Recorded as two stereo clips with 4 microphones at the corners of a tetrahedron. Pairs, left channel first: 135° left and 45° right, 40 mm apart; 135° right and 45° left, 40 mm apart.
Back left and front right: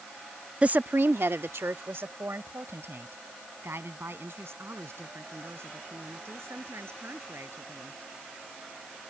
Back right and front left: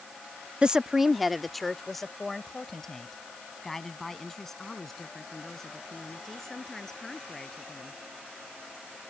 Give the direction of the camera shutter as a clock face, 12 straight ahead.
I don't hear a camera shutter.